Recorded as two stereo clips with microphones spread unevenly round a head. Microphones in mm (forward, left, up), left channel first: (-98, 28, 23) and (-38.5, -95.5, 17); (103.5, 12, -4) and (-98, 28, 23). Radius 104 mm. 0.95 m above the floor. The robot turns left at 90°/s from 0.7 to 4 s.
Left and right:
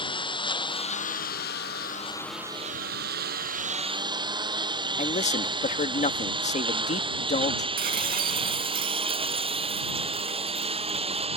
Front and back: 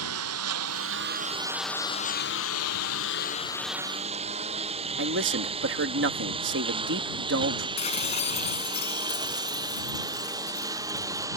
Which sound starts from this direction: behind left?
A man speaking, at 5.0 s.